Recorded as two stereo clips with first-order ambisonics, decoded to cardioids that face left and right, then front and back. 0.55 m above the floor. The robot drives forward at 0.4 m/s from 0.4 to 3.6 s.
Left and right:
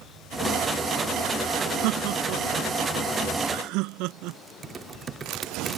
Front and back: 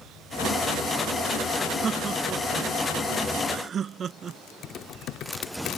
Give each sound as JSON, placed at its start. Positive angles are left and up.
{"t": 1.8, "sound": "laughter", "azimuth_deg": -110}
{"t": 4.6, "sound": "typing on a keyboard", "azimuth_deg": -30}